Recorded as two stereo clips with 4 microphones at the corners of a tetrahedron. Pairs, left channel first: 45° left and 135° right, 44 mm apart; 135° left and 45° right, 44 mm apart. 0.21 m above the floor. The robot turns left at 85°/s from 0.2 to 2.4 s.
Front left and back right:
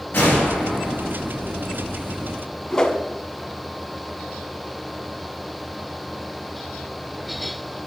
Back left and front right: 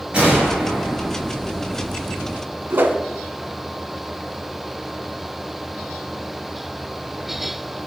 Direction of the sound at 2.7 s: 25° right.